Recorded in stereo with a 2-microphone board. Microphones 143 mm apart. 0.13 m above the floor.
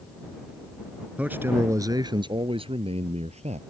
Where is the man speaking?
10° right (ahead or behind); by 3.6 s 55° right (ahead or behind).